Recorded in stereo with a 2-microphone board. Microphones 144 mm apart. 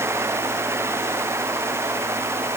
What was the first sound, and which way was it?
Only background noise.